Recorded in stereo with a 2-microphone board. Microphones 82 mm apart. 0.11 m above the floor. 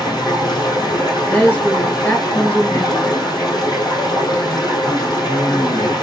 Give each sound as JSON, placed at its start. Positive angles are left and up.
{"t": 0.0, "sound": "running water", "side_deg": 60, "distance_m": 2.5}
{"t": 1.3, "sound": "a woman speaking", "side_deg": 20, "distance_m": 1.2}